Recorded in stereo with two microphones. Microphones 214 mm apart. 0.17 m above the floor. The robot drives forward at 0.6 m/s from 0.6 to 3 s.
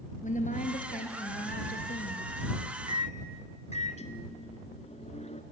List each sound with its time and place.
0.2 s a woman speaking: 35° left (ahead or behind), 2.5 m; by 2.3 s 50° left (ahead or behind), 1.8 m
2.9 s a microwave: 35° left (ahead or behind), 1.4 m; by 5.4 s 30° left (ahead or behind), 1.5 m